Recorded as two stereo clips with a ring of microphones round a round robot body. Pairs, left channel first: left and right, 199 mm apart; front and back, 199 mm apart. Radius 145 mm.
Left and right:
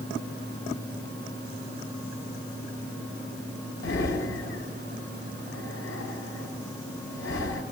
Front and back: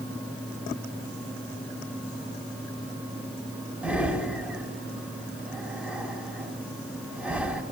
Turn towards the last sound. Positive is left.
turn(degrees=100)